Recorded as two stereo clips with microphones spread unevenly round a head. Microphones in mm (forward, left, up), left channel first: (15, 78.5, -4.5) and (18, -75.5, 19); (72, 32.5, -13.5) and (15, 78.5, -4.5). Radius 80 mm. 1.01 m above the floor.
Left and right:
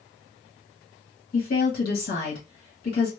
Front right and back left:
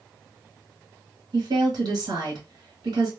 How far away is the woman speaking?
About 1.6 m.